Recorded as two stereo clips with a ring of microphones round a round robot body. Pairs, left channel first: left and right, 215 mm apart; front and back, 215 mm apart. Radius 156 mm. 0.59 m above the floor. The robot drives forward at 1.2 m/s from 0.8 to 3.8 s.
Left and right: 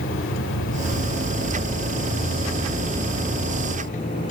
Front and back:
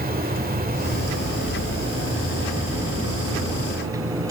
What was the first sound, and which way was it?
An insect, 135° left.